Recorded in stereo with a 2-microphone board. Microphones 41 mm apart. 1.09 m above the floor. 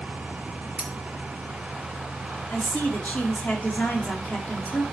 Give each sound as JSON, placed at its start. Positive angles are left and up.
{"t": 0.8, "sound": "cutlery clinking", "side_deg": -25, "distance_m": 1.5}
{"t": 2.5, "sound": "a woman speaking", "side_deg": 45, "distance_m": 2.5}